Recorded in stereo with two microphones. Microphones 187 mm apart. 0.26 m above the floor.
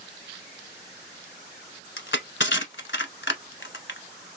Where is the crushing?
80° left, 0.8 m.